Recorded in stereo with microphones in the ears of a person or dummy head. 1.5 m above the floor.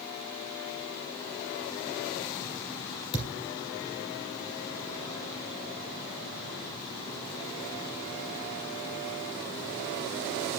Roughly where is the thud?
Left.